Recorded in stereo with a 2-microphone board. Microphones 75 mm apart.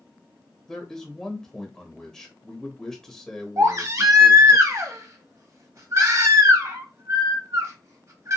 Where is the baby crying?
45° right (ahead or behind), 0.7 m.